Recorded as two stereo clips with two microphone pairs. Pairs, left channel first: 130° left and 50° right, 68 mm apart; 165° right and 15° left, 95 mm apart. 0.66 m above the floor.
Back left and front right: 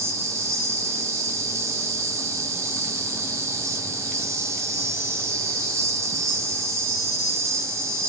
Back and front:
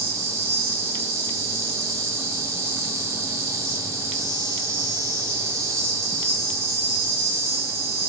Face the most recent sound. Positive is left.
turn(degrees=-30)